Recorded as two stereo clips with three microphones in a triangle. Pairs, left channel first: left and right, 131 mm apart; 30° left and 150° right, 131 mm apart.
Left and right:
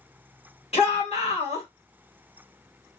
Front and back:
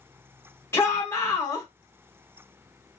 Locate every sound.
0.7 s a shout: 95° left, 1.8 m